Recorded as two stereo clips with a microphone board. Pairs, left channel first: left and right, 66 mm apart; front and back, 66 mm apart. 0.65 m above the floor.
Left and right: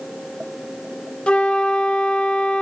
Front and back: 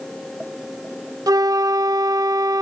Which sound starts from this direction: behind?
A flute, at 1.3 s.